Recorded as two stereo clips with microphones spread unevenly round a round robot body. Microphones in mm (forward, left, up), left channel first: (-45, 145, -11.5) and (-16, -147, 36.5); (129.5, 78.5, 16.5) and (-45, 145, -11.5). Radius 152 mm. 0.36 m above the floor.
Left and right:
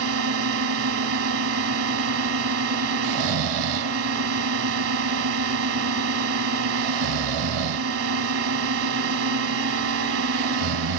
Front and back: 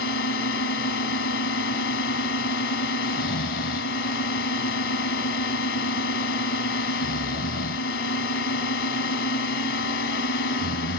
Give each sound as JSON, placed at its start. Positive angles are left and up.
{"t": 0.0, "sound": "a drone", "azimuth_deg": -40}
{"t": 3.0, "sound": "snoring", "azimuth_deg": -60}